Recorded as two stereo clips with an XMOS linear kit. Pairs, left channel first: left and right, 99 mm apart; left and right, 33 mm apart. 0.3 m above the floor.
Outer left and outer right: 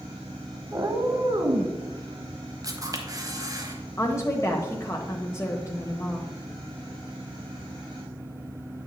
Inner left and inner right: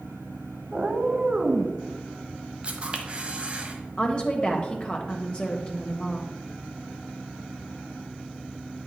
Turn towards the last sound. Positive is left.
turn(degrees=30)  # may be behind; listen again after turning